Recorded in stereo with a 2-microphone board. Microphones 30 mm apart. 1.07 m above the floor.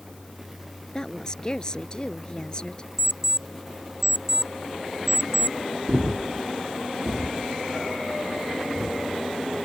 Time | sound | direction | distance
0.9 | a woman speaking | 25° left (ahead or behind) | ?
3.0 | an alarm clock | 5° right (ahead or behind) | ?
5.9 | breathing | 35° right (ahead or behind) | ?